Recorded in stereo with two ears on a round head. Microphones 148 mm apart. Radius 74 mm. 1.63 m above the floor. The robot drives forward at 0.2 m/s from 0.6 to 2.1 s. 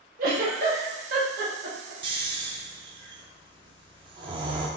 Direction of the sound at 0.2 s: 60° right (ahead or behind).